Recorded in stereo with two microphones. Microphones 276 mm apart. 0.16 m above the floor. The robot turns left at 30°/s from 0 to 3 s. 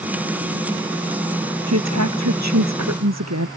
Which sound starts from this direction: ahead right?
A woman speaking, at 1.7 s.